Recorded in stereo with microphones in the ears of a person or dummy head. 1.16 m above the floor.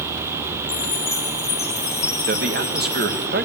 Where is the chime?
20° left (ahead or behind), 1.2 m.